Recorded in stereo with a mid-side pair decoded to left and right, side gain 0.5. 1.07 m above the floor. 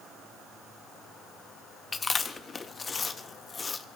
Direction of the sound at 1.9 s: 30° left.